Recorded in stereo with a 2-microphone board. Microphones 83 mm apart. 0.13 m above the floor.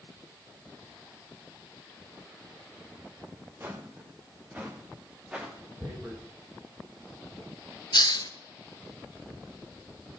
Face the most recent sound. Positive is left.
turn(degrees=65)  # may be behind; listen again after turning